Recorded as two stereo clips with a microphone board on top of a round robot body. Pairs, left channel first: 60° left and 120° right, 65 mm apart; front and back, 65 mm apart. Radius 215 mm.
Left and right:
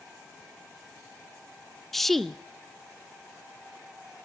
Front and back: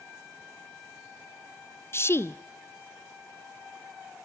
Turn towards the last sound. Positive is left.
turn(degrees=-25)